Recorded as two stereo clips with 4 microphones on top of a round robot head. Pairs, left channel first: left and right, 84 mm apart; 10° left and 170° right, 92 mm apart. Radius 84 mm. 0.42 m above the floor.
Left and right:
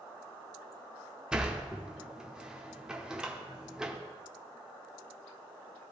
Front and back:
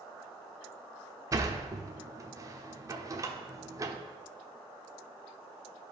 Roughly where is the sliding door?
Behind.